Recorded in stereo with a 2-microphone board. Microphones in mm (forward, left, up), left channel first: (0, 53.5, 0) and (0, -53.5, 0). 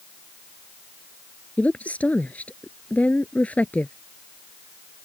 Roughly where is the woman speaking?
Centre.